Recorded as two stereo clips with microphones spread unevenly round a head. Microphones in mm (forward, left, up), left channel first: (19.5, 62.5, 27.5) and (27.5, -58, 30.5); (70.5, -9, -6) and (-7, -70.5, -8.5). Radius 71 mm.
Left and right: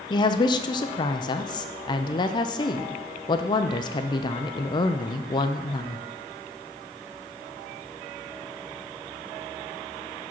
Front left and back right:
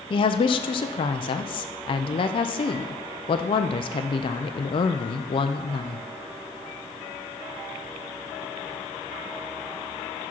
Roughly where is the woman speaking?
Ahead left.